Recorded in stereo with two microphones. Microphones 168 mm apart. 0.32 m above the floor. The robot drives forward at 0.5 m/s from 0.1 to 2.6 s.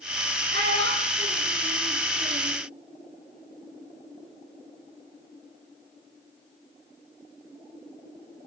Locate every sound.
0.5 s a child speaking: 85° right, 6 m; by 2.6 s 80° right, 6 m